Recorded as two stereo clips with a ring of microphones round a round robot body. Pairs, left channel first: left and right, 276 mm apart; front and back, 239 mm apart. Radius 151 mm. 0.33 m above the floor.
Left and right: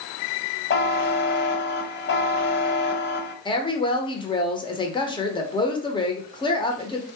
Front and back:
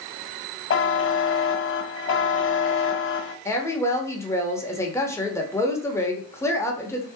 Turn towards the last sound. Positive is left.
turn(degrees=55)